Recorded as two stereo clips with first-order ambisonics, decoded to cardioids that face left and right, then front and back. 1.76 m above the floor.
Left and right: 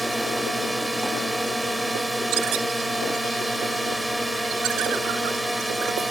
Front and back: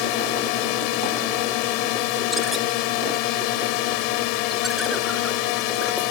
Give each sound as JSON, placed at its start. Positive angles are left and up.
{"t": 0.0, "sound": "a drone", "azimuth_deg": -5}